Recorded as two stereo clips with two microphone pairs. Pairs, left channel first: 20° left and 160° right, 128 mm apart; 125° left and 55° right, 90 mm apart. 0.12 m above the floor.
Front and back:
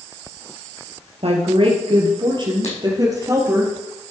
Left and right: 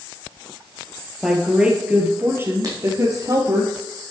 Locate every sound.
1.2 s a woman speaking: 140° right, 3 m; by 3.6 s 95° right, 3.5 m
2.6 s writing: 10° right, 4 m